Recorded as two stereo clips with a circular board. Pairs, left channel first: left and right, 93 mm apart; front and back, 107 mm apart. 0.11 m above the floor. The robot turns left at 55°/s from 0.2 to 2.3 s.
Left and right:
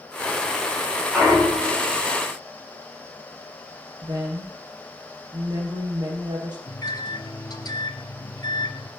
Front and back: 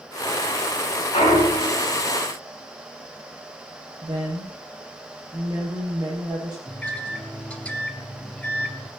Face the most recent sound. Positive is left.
turn(degrees=75)